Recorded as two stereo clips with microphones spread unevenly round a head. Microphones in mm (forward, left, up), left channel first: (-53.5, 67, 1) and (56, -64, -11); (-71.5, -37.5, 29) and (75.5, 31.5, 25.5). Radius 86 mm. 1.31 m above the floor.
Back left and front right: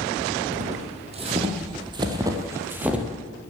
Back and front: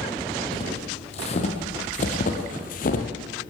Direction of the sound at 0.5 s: 100° right.